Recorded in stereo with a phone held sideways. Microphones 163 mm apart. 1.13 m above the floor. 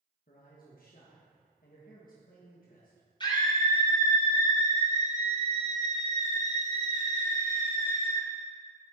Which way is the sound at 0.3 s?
60° left (ahead or behind).